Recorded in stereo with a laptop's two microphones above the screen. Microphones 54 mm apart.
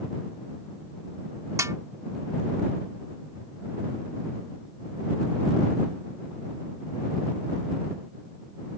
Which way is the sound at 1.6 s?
80° right.